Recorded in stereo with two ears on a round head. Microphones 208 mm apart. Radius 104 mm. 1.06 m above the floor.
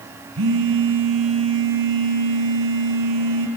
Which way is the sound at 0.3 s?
60° right (ahead or behind).